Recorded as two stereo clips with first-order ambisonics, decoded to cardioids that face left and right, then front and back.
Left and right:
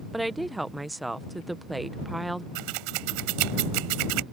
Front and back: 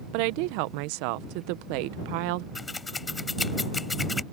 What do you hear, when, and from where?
0.1 s a woman speaking: 175° right
2.5 s scissors: 80° right